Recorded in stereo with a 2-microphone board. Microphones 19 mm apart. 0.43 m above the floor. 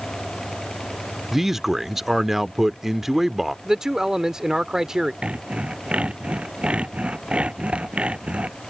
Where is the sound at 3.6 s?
30° right (ahead or behind).